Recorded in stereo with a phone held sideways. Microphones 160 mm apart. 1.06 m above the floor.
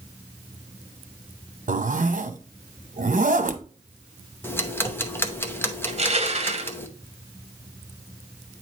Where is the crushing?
45° right (ahead or behind), 0.9 m.